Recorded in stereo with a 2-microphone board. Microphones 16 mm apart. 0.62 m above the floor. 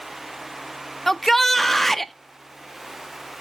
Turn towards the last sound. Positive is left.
turn(degrees=10)  # may be behind; listen again after turning